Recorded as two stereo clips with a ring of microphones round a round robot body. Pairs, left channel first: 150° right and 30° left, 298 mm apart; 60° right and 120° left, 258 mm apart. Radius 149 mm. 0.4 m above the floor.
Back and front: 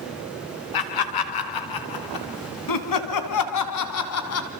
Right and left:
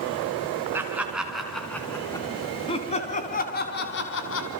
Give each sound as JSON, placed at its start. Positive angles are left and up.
{"t": 0.7, "sound": "laughter", "azimuth_deg": -155, "distance_m": 4.0}